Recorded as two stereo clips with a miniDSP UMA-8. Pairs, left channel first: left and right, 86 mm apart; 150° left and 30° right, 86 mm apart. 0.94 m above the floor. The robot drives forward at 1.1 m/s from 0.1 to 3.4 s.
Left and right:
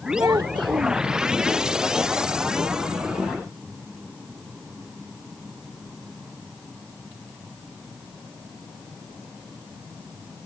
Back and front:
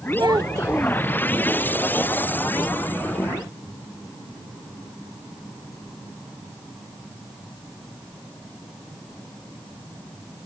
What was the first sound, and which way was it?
A child speaking, 45° right.